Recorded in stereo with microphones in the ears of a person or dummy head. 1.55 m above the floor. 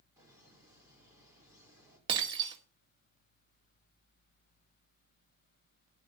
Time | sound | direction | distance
0.2 | laughter | 15° right (ahead or behind) | 4.5 m
2.1 | breaking glass | 30° right (ahead or behind) | 1.7 m